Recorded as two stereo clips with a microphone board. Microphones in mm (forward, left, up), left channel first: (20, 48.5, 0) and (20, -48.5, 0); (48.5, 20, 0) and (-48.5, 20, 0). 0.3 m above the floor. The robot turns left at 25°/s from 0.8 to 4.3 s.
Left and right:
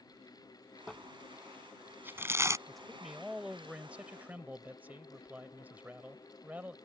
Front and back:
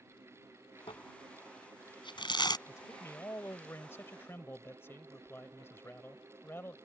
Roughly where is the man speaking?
Ahead.